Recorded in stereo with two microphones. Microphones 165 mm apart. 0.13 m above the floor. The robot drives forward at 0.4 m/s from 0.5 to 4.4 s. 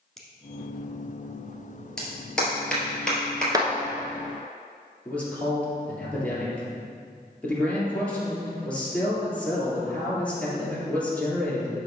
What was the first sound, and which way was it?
A finger snap, centre (ahead or behind).